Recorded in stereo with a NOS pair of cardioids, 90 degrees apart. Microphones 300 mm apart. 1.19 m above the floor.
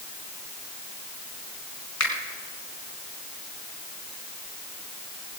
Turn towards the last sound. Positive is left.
turn(degrees=65)